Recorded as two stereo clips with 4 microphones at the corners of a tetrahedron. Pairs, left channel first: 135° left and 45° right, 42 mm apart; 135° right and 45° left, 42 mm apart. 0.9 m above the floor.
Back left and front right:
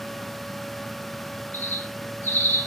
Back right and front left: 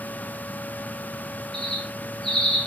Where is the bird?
145° left, 1.2 m.